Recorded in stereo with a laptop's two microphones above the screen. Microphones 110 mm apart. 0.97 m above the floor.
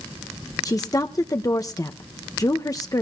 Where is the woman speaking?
35° left (ahead or behind), 0.8 m.